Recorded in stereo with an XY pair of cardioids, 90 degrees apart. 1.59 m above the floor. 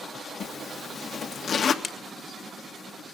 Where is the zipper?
55° left, 2 m.